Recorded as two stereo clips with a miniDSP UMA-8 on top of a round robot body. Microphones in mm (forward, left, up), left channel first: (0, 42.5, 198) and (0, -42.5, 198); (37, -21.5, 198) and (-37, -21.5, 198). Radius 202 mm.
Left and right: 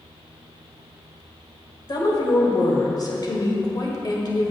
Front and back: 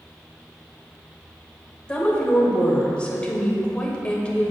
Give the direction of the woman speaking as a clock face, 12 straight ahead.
10 o'clock.